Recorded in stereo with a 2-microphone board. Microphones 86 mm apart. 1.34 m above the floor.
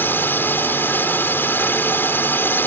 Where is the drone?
25° left (ahead or behind).